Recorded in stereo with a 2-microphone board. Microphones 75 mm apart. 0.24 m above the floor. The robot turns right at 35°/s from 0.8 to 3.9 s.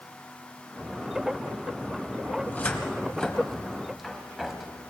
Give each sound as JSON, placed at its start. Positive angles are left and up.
{"t": 2.4, "sound": "a cupboard door", "side_deg": 20, "distance_m": 1.5}